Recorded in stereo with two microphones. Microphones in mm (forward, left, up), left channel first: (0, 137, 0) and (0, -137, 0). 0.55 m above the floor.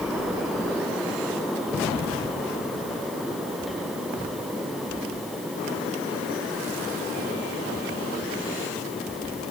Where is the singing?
No singing in this recording.